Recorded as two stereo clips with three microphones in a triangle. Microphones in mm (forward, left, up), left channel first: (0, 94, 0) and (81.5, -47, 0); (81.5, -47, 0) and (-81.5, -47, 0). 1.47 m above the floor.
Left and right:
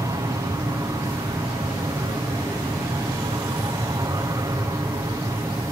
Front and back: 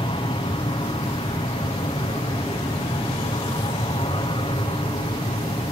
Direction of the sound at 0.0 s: 10° right.